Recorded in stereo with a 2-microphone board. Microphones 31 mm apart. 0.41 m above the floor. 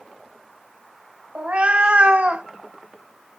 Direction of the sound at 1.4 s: 45° right (ahead or behind).